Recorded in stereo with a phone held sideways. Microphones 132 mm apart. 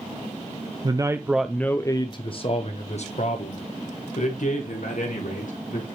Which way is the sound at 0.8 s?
35° right (ahead or behind).